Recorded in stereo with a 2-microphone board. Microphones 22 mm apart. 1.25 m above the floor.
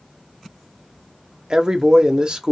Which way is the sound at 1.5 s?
40° right (ahead or behind).